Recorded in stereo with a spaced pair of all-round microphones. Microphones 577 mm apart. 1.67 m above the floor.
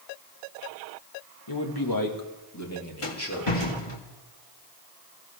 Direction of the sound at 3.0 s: 60° left (ahead or behind).